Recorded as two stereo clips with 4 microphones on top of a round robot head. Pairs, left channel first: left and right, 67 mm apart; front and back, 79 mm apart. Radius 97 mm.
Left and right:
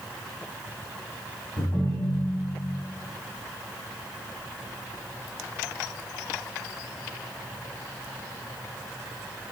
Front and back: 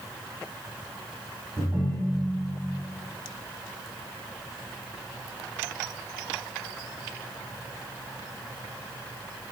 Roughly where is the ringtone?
Left.